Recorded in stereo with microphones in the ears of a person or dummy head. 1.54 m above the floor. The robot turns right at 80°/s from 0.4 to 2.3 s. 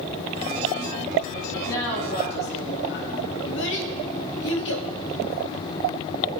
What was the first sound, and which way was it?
A woman speaking, 5° left.